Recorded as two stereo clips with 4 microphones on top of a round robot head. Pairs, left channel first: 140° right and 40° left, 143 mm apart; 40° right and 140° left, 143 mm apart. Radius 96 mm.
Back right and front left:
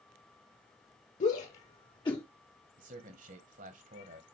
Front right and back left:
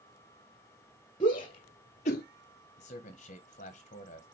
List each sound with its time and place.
1.2 s a shout: 100° right, 1.3 m; by 2.2 s 75° right, 0.8 m
2.8 s a man speaking: 5° left, 1.4 m